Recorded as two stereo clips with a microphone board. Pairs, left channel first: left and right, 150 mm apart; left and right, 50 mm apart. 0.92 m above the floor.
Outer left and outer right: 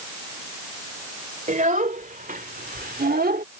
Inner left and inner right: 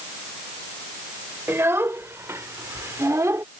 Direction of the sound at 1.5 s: 60° right (ahead or behind).